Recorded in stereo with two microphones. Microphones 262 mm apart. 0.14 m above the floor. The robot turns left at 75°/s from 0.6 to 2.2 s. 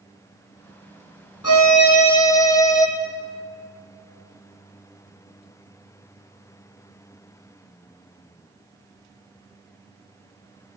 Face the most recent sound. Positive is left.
turn(degrees=15)